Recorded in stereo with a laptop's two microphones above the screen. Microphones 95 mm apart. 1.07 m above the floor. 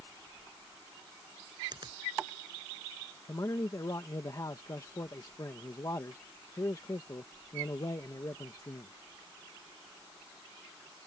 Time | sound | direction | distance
1.7 | a finger snap | 50° right (ahead or behind) | ?
3.3 | a man speaking | 40° left (ahead or behind) | ?